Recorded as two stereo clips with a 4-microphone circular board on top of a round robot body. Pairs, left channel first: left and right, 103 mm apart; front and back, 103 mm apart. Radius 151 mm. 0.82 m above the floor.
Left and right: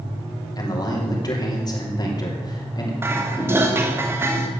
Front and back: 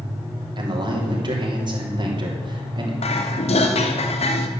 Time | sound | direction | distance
0.6 | a man speaking | 140° left | 3 m
3.0 | dishes clattering | 20° right | 1.2 m